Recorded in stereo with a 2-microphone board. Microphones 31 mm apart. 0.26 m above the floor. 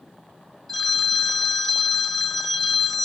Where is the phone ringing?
5° left (ahead or behind), 1.4 m.